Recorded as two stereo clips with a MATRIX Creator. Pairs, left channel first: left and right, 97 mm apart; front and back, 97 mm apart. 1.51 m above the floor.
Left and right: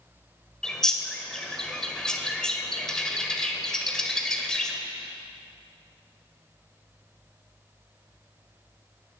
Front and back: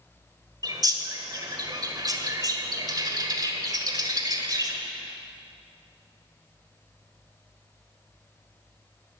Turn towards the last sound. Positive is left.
turn(degrees=170)